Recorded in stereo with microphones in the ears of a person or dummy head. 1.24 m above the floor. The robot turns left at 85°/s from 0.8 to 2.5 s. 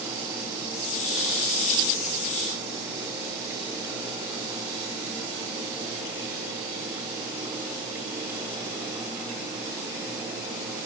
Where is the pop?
No pop in this recording.